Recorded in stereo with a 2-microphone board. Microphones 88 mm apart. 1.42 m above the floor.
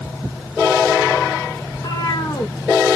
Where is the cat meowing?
45° left (ahead or behind), 1.1 m.